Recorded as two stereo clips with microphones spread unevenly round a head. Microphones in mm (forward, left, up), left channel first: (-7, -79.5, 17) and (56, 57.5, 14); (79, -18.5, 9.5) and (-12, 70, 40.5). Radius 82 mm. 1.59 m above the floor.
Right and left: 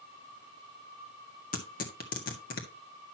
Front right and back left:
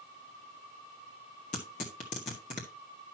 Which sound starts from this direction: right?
Tearing paper, at 1.5 s.